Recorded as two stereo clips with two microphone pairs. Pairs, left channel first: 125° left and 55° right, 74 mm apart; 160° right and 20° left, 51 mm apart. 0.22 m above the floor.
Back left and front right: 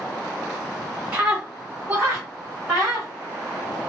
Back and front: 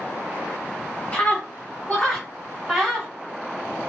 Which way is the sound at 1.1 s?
125° right.